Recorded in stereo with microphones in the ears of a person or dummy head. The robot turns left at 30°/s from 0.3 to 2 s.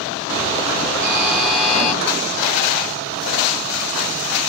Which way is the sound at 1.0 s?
15° right (ahead or behind).